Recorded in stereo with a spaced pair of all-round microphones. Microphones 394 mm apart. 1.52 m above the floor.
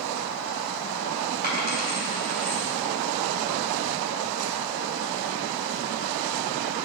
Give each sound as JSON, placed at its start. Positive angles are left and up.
{"t": 1.4, "sound": "a dropped coin", "side_deg": 25, "distance_m": 1.5}